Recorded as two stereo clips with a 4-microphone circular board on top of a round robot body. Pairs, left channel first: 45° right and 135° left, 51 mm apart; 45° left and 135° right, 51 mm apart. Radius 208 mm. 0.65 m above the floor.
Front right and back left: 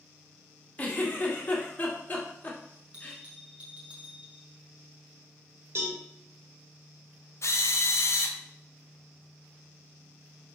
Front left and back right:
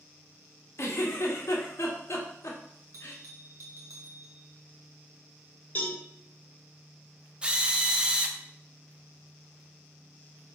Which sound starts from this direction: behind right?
A bell, at 2.9 s.